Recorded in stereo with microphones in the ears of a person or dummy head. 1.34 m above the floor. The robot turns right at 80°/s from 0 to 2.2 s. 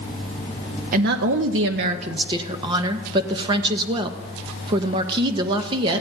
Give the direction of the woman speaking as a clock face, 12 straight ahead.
4 o'clock.